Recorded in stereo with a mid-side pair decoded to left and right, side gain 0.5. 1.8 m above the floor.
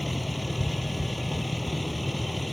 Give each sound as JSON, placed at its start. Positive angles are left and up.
{"t": 0.0, "sound": "a vehicle", "azimuth_deg": 10}